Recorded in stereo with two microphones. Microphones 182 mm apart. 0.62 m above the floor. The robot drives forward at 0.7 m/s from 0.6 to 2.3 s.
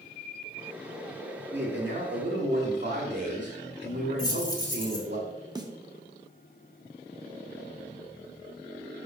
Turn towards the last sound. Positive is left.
turn(degrees=-20)  # may be behind; listen again after turning